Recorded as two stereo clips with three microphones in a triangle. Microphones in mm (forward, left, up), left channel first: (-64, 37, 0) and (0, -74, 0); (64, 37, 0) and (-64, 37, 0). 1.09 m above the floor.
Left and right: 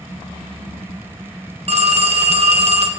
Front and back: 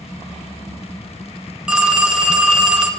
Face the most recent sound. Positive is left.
turn(degrees=-100)